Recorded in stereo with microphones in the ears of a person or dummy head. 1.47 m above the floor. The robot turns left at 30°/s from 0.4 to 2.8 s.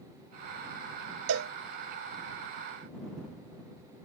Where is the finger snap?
I don't hear a finger snap.